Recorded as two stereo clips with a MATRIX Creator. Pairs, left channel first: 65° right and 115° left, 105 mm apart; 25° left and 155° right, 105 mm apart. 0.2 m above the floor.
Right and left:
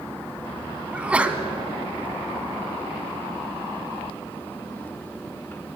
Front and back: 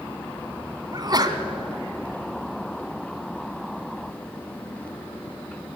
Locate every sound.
0.9 s a sneeze: 175° right, 1.4 m